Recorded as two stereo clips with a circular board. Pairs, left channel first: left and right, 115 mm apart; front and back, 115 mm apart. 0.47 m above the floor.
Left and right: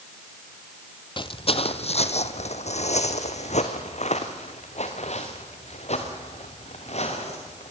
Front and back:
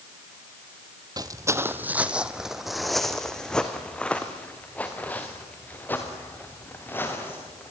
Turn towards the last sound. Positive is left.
turn(degrees=70)